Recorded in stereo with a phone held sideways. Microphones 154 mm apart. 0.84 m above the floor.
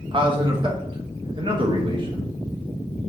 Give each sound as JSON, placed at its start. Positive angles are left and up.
{"t": 0.1, "sound": "a man speaking", "side_deg": -35, "distance_m": 0.9}